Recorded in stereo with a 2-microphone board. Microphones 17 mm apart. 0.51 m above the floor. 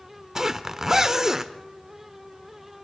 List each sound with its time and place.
0.3 s a zipper: 25° right (ahead or behind), 0.8 m